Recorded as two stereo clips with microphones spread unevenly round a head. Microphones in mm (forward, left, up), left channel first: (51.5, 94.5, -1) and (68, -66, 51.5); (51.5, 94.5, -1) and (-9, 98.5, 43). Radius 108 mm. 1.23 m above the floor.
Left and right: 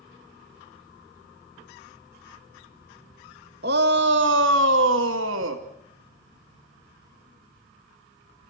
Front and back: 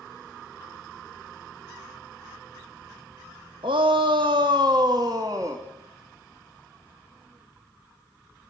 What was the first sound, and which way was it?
A shout, 130° right.